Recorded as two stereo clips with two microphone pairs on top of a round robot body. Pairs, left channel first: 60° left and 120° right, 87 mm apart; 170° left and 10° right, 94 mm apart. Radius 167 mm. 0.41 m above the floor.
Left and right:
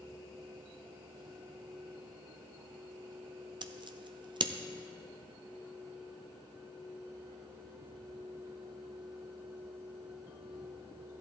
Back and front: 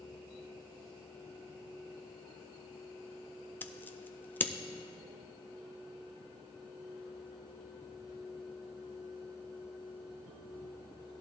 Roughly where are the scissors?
Behind right.